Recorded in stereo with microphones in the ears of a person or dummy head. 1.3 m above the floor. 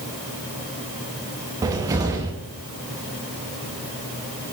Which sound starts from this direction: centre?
A cupboard door, at 1.6 s.